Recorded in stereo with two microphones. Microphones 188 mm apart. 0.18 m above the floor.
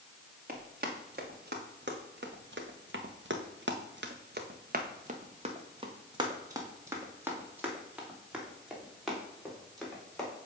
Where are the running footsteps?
55° right (ahead or behind), 2 m; by 10.3 s 5° left (ahead or behind), 3.5 m.